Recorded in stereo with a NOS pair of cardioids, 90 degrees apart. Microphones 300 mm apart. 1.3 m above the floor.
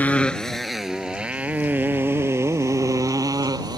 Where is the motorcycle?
5° left; by 3.8 s 15° right.